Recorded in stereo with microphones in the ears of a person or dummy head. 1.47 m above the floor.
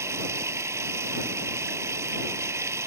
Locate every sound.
0.0 s running water: 10° right (ahead or behind)